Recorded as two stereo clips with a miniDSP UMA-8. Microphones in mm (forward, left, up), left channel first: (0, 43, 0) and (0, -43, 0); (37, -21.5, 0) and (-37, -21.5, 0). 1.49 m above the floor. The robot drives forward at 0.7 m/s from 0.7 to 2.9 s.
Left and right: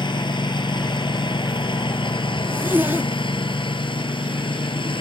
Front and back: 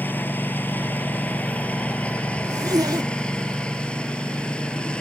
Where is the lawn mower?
65° left; by 5.0 s 75° left.